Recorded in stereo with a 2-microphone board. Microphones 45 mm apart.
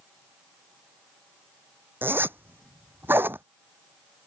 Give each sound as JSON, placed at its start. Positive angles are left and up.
{"t": 2.0, "sound": "a zipper", "side_deg": -50}